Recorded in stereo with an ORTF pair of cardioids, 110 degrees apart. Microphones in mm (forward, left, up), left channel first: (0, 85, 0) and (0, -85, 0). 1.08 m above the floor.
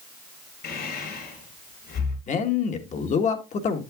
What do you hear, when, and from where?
0.6 s breathing: 70° left, 5 m
2.3 s a man speaking: 45° left, 1.4 m